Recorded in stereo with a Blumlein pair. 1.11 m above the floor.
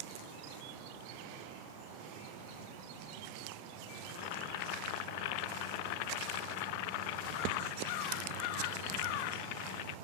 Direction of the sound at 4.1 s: 45° left.